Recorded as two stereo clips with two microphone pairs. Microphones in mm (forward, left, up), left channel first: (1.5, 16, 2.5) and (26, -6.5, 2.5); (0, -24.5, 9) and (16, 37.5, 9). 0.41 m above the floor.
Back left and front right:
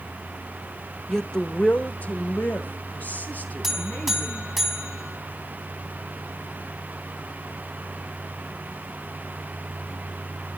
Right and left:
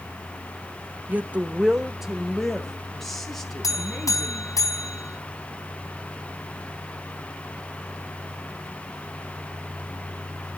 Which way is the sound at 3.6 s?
130° right.